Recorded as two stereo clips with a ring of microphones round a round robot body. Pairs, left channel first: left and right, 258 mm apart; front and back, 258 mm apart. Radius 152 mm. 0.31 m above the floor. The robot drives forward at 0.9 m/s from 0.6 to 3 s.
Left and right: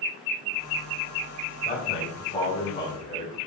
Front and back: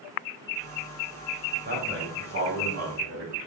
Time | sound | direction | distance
1.6 | a man speaking | 140° left | 2 m